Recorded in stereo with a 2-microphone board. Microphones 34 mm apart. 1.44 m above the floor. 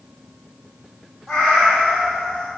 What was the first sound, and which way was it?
A cat meowing, 10° left (ahead or behind).